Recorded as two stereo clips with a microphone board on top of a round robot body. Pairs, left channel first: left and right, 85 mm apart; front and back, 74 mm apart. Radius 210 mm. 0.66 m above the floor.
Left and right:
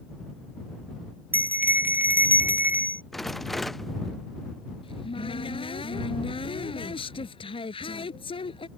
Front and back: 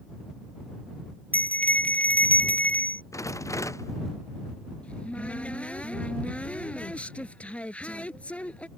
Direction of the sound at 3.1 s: Straight ahead.